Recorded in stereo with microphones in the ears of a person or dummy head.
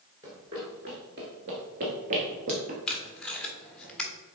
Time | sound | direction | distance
0.2 | running footsteps | 20° right (ahead or behind) | 1.8 m
2.9 | tape being pulled | centre (ahead or behind) | 1.3 m